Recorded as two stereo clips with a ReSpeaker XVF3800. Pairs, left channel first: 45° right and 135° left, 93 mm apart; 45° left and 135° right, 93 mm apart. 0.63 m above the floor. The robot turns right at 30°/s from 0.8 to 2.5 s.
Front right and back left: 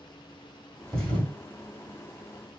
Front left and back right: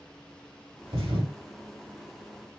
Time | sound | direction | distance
0.9 | a thud | 125° right | 1.7 m